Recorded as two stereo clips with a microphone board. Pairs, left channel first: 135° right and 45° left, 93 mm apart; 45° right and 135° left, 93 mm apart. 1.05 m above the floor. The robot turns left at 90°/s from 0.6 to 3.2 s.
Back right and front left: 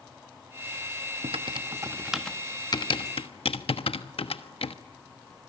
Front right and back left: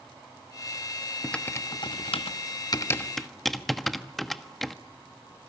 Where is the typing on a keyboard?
40° left, 1.2 m; by 4.8 s 135° right, 1.2 m.